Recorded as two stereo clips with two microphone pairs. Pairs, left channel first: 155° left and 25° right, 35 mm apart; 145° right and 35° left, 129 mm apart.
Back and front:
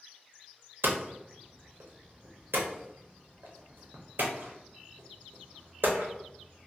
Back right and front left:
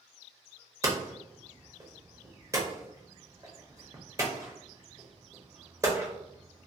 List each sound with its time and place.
0.8 s hammering: 30° right, 0.7 m